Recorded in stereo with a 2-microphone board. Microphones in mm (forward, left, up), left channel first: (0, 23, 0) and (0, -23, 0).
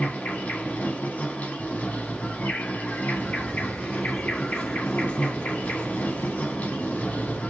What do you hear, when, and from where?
0.0 s an insect: 35° left (ahead or behind), 1.4 m
3.1 s footsteps: 10° right (ahead or behind), 1.6 m; by 7.4 s 35° left (ahead or behind), 2 m